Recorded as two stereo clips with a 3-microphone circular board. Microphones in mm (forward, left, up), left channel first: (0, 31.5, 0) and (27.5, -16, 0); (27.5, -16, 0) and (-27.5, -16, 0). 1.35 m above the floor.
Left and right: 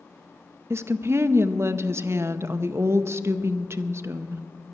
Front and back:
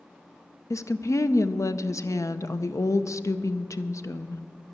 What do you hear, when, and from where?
0.7 s a woman speaking: 20° right, 0.6 m